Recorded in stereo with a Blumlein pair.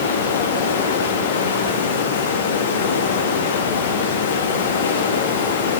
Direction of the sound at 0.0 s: 60° left.